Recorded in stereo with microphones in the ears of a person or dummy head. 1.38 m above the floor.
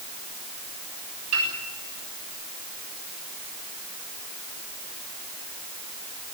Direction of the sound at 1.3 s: 85° right.